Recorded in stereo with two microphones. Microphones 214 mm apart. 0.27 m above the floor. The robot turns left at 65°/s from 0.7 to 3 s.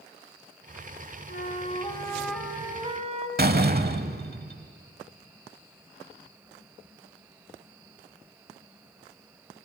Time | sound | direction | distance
1.3 | a flute | 70° left | 1.6 m
3.4 | a door slam | 45° right (ahead or behind) | 1.0 m